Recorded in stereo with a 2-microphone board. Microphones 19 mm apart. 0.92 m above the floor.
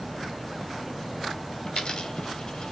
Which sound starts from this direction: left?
A dropped coin, at 1.7 s.